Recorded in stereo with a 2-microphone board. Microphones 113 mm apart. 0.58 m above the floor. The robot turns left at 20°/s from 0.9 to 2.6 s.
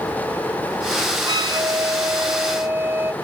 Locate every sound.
1.3 s a flute: 45° right (ahead or behind); by 3.1 s 20° right (ahead or behind)